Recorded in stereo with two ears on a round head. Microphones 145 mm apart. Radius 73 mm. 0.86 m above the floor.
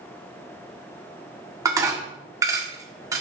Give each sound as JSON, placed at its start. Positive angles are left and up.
{"t": 1.6, "sound": "dishes clattering", "side_deg": -20, "distance_m": 1.4}